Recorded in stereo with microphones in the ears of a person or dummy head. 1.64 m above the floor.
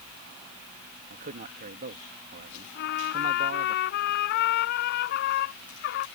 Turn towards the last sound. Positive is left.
turn(degrees=60)  # may be behind; listen again after turning